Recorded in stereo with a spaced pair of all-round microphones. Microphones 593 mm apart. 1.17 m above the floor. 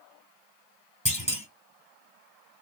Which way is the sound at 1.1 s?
10° left (ahead or behind).